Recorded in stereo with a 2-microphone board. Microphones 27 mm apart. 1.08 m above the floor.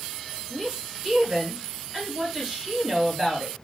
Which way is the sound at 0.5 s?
20° right (ahead or behind).